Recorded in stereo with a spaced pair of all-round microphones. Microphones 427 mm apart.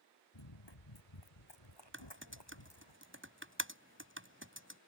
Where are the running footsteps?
75° left (ahead or behind); by 2.9 s 70° left (ahead or behind).